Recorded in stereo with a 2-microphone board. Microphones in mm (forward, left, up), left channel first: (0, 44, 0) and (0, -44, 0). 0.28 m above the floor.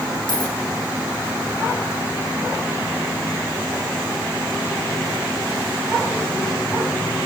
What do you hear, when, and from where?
0.3 s a dropped coin: 60° left (ahead or behind), 6 m